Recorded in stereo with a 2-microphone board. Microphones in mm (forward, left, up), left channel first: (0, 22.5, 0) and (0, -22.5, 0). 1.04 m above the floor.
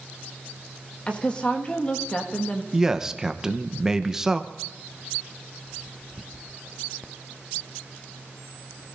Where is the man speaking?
10° right (ahead or behind), 0.8 m.